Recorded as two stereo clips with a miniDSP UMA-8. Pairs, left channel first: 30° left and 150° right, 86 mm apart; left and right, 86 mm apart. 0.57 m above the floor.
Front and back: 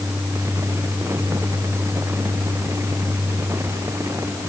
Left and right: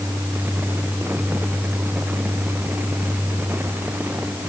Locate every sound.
Only background noise.